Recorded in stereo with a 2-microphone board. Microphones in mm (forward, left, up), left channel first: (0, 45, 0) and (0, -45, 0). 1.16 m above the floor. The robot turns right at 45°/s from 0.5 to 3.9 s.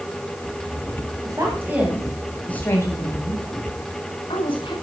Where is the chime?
I don't hear a chime.